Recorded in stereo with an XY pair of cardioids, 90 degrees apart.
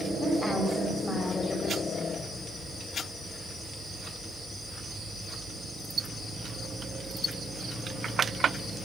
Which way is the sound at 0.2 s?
30° left.